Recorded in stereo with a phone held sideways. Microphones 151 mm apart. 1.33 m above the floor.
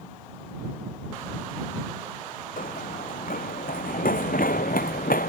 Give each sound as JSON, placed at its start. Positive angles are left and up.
{"t": 2.6, "sound": "running footsteps", "side_deg": 70}